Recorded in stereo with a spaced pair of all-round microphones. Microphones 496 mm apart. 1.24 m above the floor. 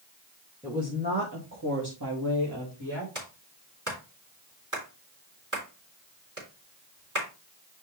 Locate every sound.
0.6 s a woman speaking: 5° right (ahead or behind), 1.8 m; by 3.0 s 55° right (ahead or behind), 3 m
3.1 s a clap: 35° right (ahead or behind), 3.5 m